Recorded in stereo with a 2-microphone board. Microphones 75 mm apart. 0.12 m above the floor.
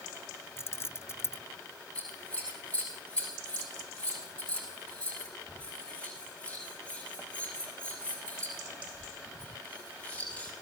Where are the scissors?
15° left (ahead or behind), 8 m.